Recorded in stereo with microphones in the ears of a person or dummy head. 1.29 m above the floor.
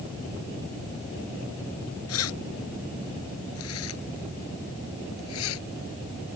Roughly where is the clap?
No clap in this recording.